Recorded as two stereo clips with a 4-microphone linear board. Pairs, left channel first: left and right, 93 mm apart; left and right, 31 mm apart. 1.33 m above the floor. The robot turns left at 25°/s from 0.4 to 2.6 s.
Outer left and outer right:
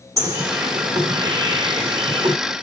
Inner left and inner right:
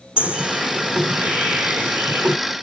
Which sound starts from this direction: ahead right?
A bird, at 0.2 s.